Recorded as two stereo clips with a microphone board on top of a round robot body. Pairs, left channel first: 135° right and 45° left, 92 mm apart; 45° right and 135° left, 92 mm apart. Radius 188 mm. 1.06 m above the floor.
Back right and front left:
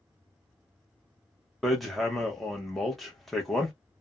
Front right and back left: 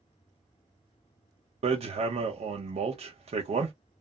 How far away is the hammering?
About 0.6 m.